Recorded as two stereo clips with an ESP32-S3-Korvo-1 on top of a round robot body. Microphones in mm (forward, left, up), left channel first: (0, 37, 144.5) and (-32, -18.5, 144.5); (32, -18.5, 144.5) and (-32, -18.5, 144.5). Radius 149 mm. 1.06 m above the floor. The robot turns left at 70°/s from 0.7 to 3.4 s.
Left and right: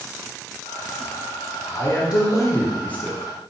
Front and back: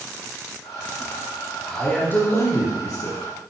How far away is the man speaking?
About 3.5 m.